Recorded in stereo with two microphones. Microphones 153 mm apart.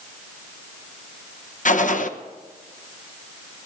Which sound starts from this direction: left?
A gunshot, at 1.6 s.